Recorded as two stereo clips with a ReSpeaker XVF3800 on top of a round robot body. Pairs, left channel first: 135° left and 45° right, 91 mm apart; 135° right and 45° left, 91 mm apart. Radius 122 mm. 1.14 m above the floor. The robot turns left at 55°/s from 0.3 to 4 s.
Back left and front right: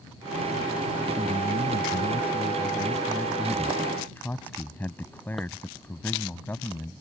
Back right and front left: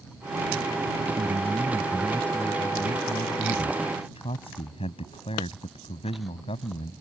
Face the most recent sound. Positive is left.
turn(degrees=-155)